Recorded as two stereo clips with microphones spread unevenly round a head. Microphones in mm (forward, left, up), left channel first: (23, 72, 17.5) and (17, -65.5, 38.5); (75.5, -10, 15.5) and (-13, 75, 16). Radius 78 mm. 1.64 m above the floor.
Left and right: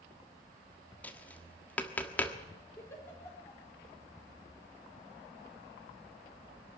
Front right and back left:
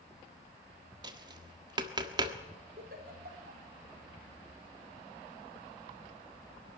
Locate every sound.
1.0 s tapping: 175° left, 1.3 m
2.8 s a giggle: 165° left, 4 m